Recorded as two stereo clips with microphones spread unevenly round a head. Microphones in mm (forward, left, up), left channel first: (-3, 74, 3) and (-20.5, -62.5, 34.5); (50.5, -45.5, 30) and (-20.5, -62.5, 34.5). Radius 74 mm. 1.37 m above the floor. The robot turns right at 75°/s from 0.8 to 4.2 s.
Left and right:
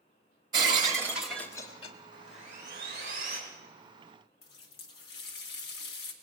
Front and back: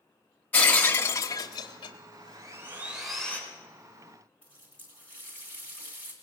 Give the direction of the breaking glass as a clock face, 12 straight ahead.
2 o'clock.